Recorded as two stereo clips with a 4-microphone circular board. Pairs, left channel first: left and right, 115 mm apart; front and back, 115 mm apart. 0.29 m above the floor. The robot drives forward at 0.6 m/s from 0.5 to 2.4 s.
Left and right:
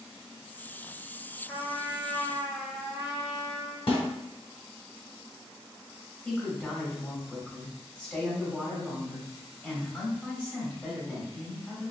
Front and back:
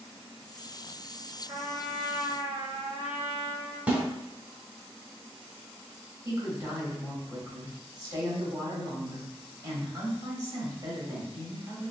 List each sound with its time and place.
1.5 s a trumpet: 170° left, 1.6 m; by 3.8 s 175° left, 2 m
3.9 s a snare drum: 105° left, 1.0 m
6.2 s a woman speaking: 160° left, 1.2 m